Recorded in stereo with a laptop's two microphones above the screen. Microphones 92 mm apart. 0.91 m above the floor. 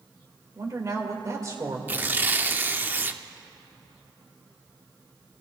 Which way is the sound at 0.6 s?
40° right (ahead or behind).